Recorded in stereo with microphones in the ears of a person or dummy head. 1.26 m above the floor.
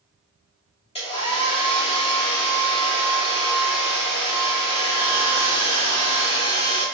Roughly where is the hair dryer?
Left.